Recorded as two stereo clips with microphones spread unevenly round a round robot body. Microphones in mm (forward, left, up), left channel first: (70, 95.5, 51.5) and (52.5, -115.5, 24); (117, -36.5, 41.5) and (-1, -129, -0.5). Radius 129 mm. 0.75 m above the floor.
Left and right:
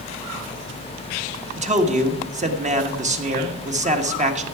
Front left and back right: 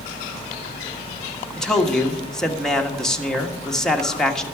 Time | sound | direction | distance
1.6 | a man speaking | 60° right | 1.5 m